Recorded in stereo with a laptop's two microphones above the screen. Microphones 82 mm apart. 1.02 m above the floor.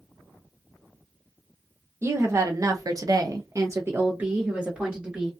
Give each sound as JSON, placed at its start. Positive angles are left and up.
{"t": 2.0, "sound": "a woman speaking", "side_deg": -30, "distance_m": 0.8}